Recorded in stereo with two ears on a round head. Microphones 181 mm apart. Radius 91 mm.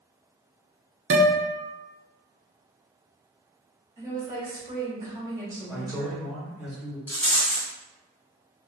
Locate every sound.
1.1 s a guitar: 65° right (ahead or behind), 0.7 m
4.0 s a woman speaking: 15° right (ahead or behind), 1.3 m
5.7 s a man speaking: 5° right (ahead or behind), 1.6 m
7.1 s a rattle: 10° left (ahead or behind), 1.6 m